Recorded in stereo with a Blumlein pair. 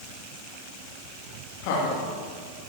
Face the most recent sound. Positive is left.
turn(degrees=45)